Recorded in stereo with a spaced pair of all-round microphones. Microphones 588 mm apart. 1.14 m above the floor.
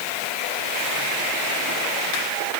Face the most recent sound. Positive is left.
No sound to turn to.